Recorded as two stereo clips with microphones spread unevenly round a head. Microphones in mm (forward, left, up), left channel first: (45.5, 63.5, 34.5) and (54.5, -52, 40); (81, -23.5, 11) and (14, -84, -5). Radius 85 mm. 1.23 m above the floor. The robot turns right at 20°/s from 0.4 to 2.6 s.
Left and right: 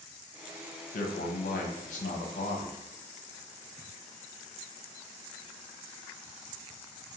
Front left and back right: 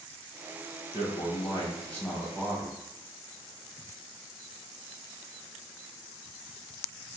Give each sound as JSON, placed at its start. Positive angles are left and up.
{"t": 0.9, "sound": "a man speaking", "azimuth_deg": 100, "distance_m": 0.6}